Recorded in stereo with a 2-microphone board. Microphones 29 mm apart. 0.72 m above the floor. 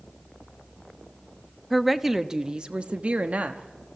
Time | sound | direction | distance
1.7 | a woman speaking | 5° left (ahead or behind) | 0.8 m